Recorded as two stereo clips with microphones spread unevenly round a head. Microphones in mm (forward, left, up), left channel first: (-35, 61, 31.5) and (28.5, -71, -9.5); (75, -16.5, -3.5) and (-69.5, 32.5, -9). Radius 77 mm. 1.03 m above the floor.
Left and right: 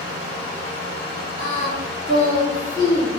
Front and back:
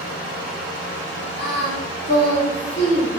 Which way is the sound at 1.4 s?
5° left.